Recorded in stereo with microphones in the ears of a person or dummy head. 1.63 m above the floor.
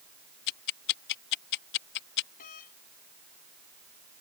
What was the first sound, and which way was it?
Ticking, 55° left (ahead or behind).